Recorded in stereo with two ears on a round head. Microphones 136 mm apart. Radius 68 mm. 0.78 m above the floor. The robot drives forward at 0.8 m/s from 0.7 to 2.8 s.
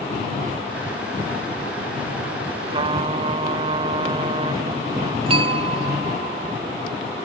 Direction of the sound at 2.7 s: 40° right (ahead or behind).